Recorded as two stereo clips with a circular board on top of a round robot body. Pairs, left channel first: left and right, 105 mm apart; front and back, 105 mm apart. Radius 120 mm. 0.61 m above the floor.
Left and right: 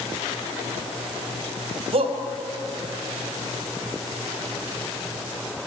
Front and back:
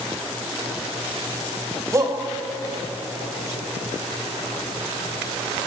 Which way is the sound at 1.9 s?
115° right.